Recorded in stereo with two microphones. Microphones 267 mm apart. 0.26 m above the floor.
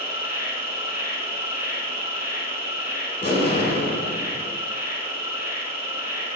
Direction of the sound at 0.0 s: 45° right (ahead or behind).